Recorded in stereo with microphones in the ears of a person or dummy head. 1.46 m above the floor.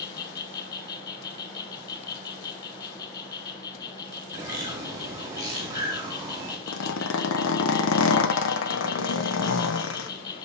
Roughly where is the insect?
Left.